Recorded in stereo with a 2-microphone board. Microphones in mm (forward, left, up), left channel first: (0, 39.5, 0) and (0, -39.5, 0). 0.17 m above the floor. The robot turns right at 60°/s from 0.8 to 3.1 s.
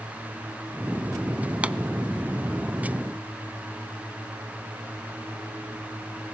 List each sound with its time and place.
1.6 s a pop: 20° right (ahead or behind), 0.5 m; by 1.8 s 15° right (ahead or behind), 0.5 m